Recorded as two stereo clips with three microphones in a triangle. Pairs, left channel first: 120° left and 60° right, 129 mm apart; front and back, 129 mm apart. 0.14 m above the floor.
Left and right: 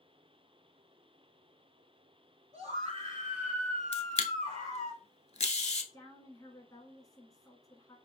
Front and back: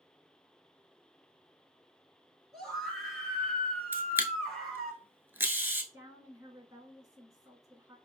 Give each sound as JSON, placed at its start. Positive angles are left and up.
{"t": 2.5, "sound": "a scream", "azimuth_deg": -90, "distance_m": 1.9}
{"t": 3.9, "sound": "a camera shutter", "azimuth_deg": 105, "distance_m": 0.5}
{"t": 5.9, "sound": "a woman speaking", "azimuth_deg": 150, "distance_m": 1.1}